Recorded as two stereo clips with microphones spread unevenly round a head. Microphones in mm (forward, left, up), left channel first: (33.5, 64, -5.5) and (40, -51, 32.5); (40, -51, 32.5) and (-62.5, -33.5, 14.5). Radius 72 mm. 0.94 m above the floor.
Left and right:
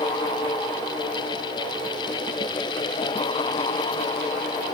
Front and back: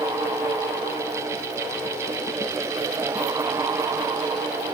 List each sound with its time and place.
Only background noise.